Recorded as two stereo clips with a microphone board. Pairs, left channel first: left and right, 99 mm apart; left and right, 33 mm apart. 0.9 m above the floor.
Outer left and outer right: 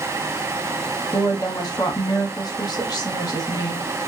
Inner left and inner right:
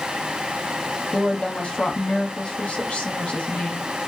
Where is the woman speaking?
45° left (ahead or behind), 0.9 m.